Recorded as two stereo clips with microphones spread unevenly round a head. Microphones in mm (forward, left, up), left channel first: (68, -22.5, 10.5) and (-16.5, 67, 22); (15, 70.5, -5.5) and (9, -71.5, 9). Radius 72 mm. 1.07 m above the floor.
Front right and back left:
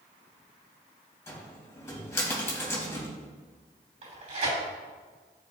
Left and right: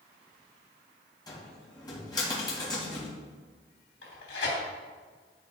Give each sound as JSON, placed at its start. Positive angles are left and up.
{"t": 1.3, "sound": "a cupboard door", "azimuth_deg": 25, "distance_m": 3.0}
{"t": 4.0, "sound": "tearing paper", "azimuth_deg": 100, "distance_m": 3.0}